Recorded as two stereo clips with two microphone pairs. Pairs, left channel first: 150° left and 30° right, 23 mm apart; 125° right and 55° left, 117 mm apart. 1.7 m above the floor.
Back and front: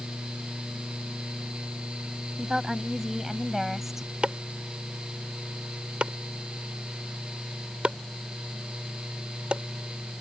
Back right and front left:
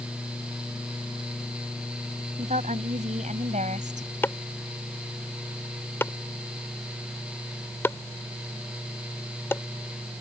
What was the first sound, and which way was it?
A woman speaking, 40° left.